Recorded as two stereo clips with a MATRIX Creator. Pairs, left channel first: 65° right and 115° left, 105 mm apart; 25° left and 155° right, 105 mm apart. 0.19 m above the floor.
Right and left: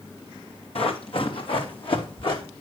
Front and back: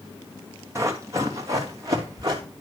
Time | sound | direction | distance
0.8 | running footsteps | 95° right | 2.5 m